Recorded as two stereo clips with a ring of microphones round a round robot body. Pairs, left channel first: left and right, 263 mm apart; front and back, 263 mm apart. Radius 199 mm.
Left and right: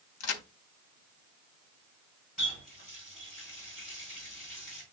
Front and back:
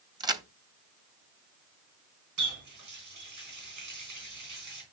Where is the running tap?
Straight behind, 3.5 m.